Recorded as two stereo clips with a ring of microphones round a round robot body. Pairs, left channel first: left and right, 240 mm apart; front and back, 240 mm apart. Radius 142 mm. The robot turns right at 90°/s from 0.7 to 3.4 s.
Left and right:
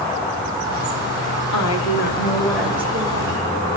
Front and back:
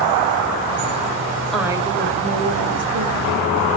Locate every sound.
1.5 s a woman speaking: 85° left, 5 m; by 3.8 s 105° right, 5 m